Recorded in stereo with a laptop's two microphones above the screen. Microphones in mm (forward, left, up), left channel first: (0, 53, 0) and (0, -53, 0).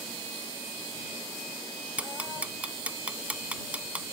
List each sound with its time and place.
2.0 s ticking: 10° right (ahead or behind)